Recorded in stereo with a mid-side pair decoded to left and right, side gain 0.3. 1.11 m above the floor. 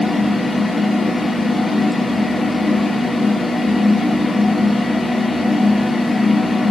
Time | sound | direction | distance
0.0 | a fan | 35° left | 2 m